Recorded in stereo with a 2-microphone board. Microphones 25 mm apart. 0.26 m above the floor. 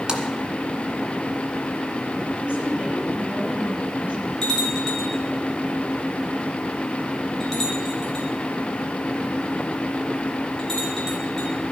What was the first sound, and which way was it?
A splash, 30° right (ahead or behind).